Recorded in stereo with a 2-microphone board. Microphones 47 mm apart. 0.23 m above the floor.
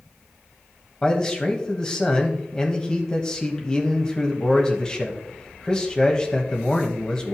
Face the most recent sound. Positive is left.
turn(degrees=20)  # may be behind; listen again after turning